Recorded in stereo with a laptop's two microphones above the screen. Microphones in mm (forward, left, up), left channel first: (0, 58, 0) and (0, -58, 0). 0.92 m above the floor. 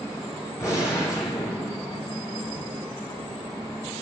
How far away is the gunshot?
About 4.5 m.